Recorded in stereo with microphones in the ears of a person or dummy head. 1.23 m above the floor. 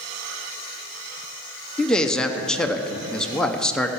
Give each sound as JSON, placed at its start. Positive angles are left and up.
{"t": 1.8, "sound": "a man speaking", "side_deg": 5, "distance_m": 0.6}